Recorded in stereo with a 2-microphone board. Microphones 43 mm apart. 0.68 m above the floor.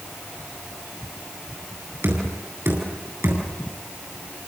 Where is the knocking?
70° right (ahead or behind), 9 m.